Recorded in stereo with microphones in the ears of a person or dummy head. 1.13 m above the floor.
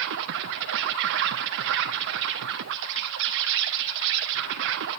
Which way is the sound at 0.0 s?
65° right (ahead or behind).